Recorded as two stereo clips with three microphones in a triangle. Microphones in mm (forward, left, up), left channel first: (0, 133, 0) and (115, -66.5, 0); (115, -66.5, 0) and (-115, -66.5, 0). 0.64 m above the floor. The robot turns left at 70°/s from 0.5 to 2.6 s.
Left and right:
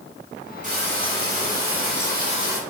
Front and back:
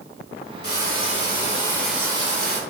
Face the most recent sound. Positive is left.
turn(degrees=-140)